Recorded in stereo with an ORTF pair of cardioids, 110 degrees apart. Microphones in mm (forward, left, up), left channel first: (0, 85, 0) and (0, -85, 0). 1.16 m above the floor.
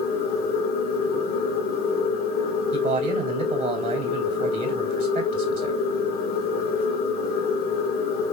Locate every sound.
0.0 s a machine running: 65° left, 1.3 m
2.7 s a man speaking: 55° right, 2.5 m